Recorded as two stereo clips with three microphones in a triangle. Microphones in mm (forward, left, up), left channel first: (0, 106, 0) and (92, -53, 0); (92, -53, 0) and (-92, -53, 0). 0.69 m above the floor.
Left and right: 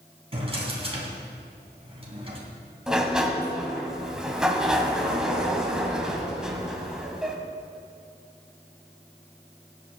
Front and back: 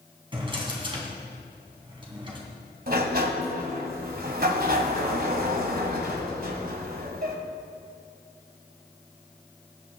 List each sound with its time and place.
0.3 s a drawer: 115° right, 3 m
2.9 s a sliding door: 145° right, 1.5 m